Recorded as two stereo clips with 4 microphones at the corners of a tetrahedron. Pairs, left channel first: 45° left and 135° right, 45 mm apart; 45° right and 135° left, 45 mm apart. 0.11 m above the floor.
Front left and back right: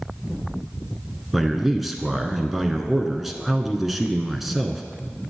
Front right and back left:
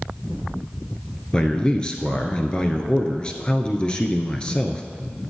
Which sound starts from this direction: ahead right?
A man speaking, at 1.3 s.